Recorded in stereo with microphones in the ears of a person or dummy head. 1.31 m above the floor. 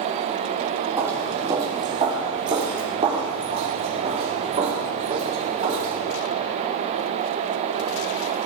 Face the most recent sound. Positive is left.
turn(degrees=-45)  # may be behind; listen again after turning